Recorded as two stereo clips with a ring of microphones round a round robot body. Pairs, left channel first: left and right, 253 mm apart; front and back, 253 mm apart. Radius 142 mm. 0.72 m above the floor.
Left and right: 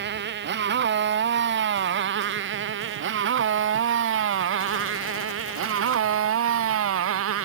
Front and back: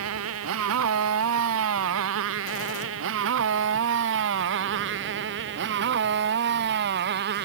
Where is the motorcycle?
140° right; by 7.5 s 125° right.